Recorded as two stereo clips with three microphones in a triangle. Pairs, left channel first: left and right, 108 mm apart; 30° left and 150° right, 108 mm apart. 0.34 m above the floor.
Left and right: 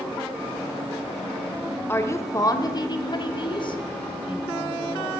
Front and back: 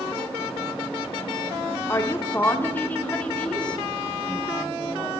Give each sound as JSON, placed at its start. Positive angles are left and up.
{"t": 1.9, "sound": "a woman speaking", "azimuth_deg": 55, "distance_m": 1.1}